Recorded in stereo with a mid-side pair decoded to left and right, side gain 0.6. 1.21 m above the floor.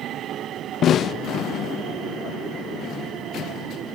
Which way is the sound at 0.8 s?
45° left.